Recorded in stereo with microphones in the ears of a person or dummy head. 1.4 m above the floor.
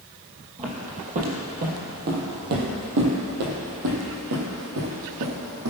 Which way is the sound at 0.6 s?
30° right (ahead or behind).